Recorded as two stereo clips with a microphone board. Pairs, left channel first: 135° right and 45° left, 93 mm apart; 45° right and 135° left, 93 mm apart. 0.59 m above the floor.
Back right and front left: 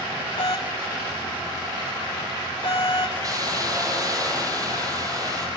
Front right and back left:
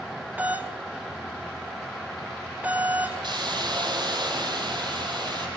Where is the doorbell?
155° right, 5.5 m.